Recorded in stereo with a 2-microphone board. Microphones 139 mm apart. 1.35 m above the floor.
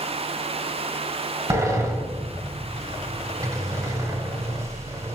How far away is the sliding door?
About 1.8 m.